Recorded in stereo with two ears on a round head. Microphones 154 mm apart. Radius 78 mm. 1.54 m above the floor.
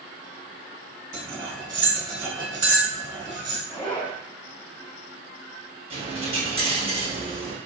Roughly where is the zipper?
Centre.